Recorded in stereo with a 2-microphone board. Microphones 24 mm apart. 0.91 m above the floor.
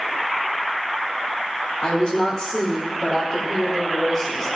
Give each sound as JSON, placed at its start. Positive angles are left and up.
{"t": 1.8, "sound": "a woman speaking", "side_deg": 45, "distance_m": 4.0}